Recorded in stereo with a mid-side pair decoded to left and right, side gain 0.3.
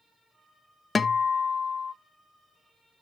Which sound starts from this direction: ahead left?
A guitar, at 0.9 s.